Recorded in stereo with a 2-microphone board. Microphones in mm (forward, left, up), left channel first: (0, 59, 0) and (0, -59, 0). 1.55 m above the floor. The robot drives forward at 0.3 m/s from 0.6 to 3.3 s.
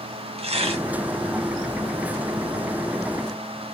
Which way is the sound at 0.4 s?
55° right (ahead or behind).